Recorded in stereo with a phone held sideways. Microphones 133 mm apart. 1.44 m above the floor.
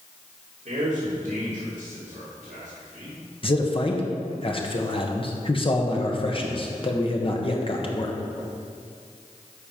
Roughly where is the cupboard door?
I don't hear a cupboard door.